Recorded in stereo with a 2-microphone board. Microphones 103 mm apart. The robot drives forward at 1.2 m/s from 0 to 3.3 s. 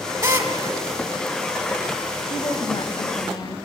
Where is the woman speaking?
55° left (ahead or behind), 1.6 m; by 3.6 s 40° left (ahead or behind), 1.9 m.